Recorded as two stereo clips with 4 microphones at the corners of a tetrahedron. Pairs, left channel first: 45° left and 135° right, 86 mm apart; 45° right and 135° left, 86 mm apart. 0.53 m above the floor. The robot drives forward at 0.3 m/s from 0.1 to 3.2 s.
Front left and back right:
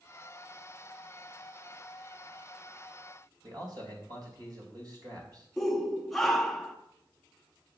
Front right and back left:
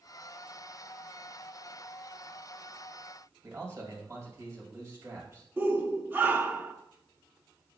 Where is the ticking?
No ticking in this recording.